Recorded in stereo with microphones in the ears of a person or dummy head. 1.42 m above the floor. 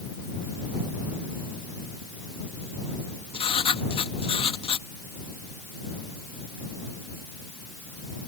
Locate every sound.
3.3 s writing: 30° left (ahead or behind)